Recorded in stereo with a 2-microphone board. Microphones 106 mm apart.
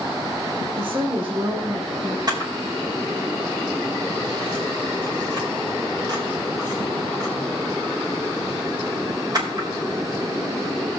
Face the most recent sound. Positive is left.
turn(degrees=-40)  # may be behind; listen again after turning